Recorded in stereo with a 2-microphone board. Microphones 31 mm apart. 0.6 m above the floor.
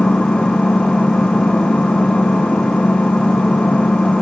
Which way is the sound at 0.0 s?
40° left (ahead or behind).